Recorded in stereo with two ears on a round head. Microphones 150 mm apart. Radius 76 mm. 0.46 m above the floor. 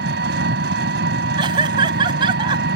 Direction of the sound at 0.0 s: 70° right (ahead or behind).